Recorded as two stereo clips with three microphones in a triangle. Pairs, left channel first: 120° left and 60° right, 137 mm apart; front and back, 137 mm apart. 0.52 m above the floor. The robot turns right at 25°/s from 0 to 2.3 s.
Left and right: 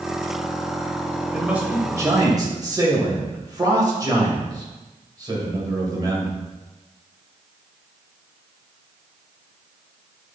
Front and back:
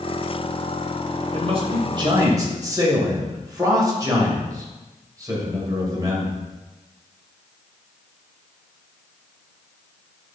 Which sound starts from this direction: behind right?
A man speaking, at 1.3 s.